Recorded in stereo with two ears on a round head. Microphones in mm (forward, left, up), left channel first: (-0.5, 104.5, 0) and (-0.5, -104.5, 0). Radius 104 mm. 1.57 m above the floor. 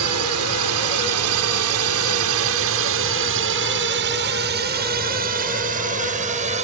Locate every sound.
0.0 s a drone: 75° right (ahead or behind); by 6.7 s 30° right (ahead or behind)